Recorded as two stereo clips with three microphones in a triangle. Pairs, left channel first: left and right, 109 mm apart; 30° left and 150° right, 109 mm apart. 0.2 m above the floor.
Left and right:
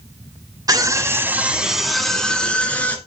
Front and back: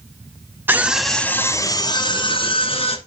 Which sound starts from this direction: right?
A scream, at 0.7 s.